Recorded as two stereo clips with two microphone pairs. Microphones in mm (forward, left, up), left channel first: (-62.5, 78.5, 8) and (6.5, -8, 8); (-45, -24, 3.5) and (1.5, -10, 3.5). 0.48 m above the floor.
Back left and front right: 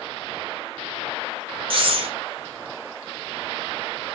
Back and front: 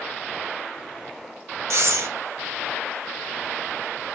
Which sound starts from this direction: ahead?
Breathing, at 1.7 s.